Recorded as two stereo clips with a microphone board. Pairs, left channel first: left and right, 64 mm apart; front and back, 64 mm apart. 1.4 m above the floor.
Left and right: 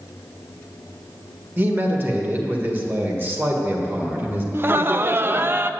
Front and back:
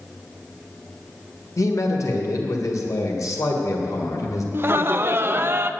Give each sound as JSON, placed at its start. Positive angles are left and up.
{"t": 1.6, "sound": "a man speaking", "azimuth_deg": -35, "distance_m": 1.6}
{"t": 4.5, "sound": "laughter", "azimuth_deg": -135, "distance_m": 0.5}